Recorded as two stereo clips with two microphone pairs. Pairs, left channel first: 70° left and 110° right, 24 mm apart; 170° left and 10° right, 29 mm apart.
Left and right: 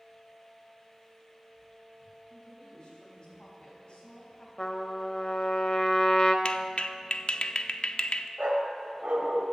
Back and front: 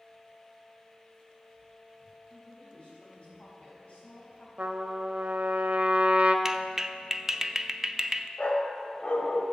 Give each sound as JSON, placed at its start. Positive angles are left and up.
{"t": 2.3, "sound": "a woman speaking", "azimuth_deg": 125, "distance_m": 4.5}
{"t": 4.6, "sound": "a trumpet", "azimuth_deg": 30, "distance_m": 0.9}
{"t": 6.5, "sound": "a clap", "azimuth_deg": 55, "distance_m": 0.5}
{"t": 8.4, "sound": "a dog barking", "azimuth_deg": -140, "distance_m": 1.2}